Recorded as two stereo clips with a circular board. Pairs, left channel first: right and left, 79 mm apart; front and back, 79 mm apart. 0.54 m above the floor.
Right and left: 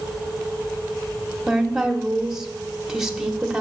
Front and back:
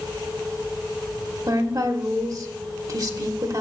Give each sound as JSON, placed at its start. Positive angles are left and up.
{"t": 1.5, "sound": "a woman speaking", "azimuth_deg": 170, "distance_m": 1.1}